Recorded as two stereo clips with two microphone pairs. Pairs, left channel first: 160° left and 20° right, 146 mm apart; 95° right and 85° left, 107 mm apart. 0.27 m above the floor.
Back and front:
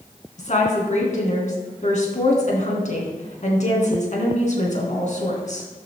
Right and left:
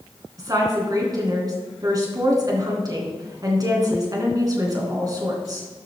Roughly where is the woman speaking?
Behind left.